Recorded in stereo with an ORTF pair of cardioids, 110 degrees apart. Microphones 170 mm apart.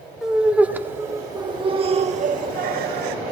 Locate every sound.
0.2 s laughter: 5° right, 2.5 m; by 3.2 s 75° right, 1.5 m